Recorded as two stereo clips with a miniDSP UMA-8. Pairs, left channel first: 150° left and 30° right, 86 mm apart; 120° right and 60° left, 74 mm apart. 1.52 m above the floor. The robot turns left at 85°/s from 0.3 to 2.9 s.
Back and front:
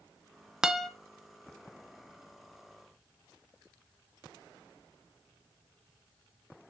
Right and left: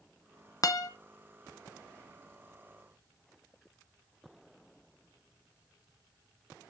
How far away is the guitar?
About 0.7 m.